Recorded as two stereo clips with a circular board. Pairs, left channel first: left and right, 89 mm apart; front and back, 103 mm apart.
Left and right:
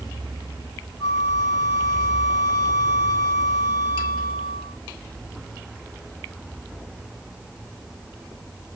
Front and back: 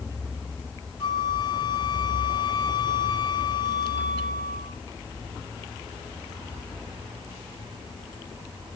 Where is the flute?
50° left, 1.1 m.